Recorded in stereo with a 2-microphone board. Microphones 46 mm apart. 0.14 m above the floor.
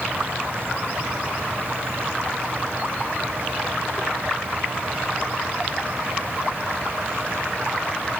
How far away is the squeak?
I don't hear a squeak.